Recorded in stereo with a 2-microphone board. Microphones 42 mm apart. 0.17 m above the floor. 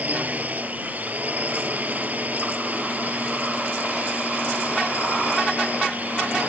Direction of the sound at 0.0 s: 45° right (ahead or behind).